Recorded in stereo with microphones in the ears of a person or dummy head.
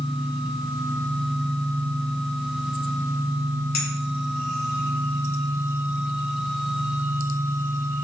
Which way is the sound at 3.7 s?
45° left (ahead or behind).